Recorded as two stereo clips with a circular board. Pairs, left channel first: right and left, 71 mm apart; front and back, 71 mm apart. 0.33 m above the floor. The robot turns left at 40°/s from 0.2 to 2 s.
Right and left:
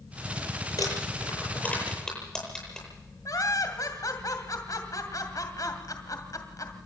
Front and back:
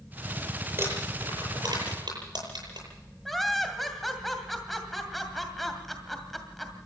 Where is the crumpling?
125° right, 9.5 m; by 2.9 s 175° right, 9.5 m.